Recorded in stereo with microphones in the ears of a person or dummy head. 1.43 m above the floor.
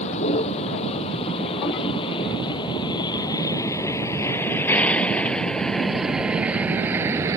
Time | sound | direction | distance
0.0 | a vehicle | 35° left (ahead or behind) | ?